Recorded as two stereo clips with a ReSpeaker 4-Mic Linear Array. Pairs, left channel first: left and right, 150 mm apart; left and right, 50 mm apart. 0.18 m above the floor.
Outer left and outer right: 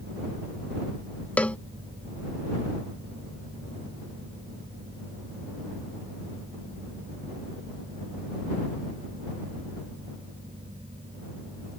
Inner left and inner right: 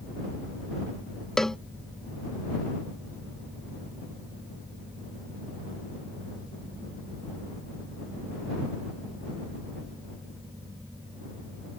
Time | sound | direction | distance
1.4 | a cowbell | 10° left (ahead or behind) | ?